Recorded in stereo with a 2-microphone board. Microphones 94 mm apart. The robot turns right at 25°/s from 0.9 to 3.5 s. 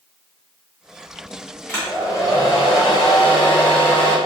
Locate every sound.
1.7 s a hair dryer: 25° left, 1.1 m; by 4.2 s 70° left, 1.1 m